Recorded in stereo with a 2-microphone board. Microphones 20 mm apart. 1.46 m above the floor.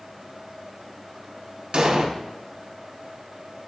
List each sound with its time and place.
1.7 s an explosion: 50° right (ahead or behind), 0.6 m